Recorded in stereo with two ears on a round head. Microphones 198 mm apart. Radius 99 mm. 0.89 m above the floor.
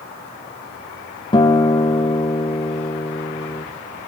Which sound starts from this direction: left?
A guitar, at 1.3 s.